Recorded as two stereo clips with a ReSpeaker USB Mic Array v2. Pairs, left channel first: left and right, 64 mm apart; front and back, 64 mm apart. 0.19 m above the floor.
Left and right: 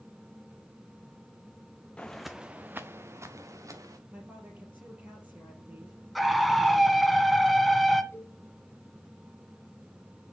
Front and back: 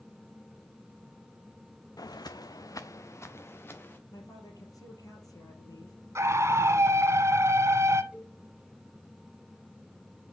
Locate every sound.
2.0 s footsteps: 20° left, 0.8 m; by 4.0 s 60° right, 2.0 m
4.1 s a woman speaking: 25° right, 4.5 m
6.2 s a scream: straight behind, 1.4 m
8.1 s a cowbell: 120° left, 1.3 m